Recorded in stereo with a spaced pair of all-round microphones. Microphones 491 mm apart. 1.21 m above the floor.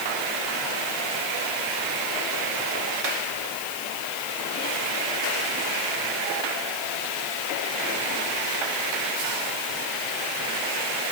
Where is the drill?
No drill in this recording.